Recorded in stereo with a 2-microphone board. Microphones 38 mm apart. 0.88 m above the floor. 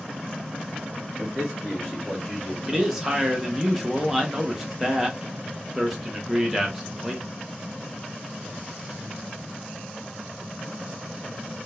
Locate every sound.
1.2 s a man speaking: 15° right (ahead or behind), 1.2 m; by 2.5 s 20° left (ahead or behind), 1.9 m
2.6 s a man speaking: 5° right (ahead or behind), 0.9 m